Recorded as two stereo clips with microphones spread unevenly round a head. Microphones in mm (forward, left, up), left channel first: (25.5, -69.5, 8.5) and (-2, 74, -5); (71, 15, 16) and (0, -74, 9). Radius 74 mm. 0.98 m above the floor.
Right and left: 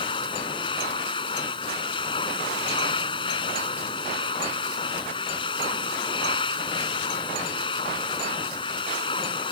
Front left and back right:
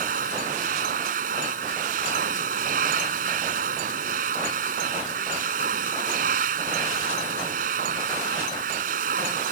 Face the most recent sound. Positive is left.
turn(degrees=-140)